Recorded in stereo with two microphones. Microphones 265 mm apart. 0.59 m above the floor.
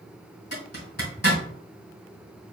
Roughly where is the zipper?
Left.